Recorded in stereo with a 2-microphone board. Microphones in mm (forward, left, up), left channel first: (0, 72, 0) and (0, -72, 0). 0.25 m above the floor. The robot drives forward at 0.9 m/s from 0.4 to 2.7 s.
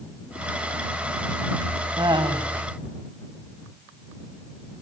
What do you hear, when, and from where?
2.0 s laughter: 30° right (ahead or behind), 2 m; by 2.5 s 35° right (ahead or behind), 1.9 m